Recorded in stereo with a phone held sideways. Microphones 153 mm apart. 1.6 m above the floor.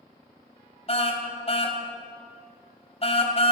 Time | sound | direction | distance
0.9 | a car horn | 40° left (ahead or behind) | 3.5 m